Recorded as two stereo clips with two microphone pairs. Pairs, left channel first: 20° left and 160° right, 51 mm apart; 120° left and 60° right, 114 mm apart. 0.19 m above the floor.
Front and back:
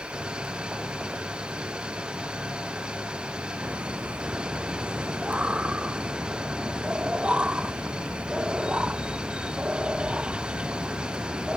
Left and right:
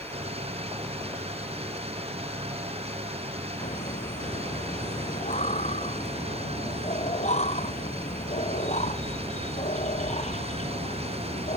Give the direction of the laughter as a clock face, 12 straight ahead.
8 o'clock.